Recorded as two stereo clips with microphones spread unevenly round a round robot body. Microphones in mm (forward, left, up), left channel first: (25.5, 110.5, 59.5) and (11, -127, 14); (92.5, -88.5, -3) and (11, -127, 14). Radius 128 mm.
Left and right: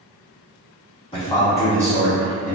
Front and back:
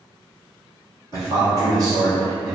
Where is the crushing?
No crushing in this recording.